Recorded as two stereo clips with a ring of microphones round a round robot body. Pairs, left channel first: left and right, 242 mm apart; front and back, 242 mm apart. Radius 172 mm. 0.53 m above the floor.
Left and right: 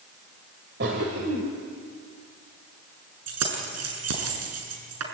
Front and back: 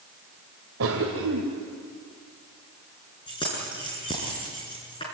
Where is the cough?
140° right, 2 m.